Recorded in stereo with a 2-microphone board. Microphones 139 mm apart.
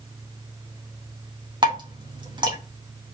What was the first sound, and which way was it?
Dripping, 35° right (ahead or behind).